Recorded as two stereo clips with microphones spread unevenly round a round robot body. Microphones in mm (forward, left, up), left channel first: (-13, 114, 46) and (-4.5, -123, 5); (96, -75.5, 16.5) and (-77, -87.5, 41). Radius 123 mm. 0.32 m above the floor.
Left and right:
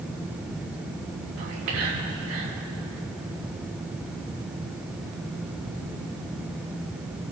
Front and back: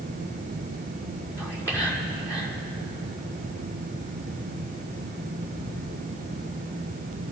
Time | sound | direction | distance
1.4 | whispering | 70° right | 6 m